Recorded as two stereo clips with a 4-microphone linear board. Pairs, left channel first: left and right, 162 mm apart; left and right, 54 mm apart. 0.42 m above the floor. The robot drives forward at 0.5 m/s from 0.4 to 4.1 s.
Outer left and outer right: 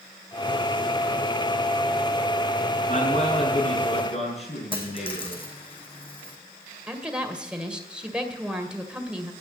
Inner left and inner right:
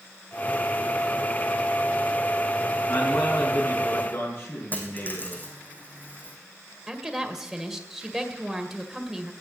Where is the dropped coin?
35° left (ahead or behind), 2.5 m.